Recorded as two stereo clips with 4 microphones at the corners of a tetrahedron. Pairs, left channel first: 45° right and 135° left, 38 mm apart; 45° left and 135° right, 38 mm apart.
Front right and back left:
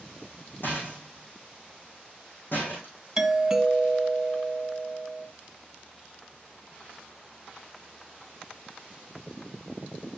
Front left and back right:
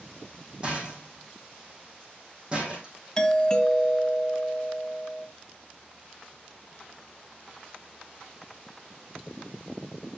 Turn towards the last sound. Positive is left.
turn(degrees=80)